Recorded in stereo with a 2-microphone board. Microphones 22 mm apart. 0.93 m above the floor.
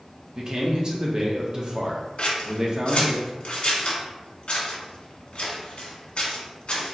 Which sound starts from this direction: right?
A man speaking, at 0.3 s.